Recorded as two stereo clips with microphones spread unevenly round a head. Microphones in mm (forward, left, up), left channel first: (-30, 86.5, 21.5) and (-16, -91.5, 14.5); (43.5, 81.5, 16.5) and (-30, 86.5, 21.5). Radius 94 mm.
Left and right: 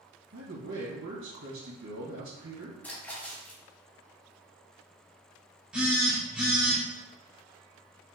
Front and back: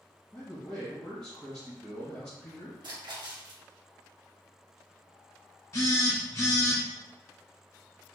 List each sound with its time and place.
0.3 s a man speaking: 80° right, 1.7 m
2.8 s a splash: 175° left, 0.9 m
5.7 s a phone buzzing: straight ahead, 0.9 m